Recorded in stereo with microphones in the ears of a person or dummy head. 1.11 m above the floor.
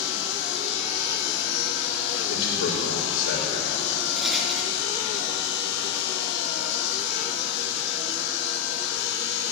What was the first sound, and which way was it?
A machine running, 65° left (ahead or behind).